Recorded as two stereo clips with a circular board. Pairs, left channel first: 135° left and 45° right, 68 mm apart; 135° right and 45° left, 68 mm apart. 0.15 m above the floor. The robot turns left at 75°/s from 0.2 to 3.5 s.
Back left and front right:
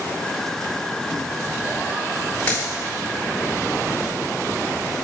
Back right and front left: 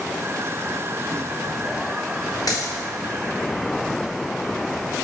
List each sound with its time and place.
2.5 s a dropped coin: 155° right, 3 m; by 2.7 s 170° right, 3 m